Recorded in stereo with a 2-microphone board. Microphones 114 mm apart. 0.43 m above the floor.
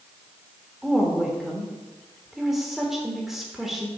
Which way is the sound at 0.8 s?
5° right (ahead or behind).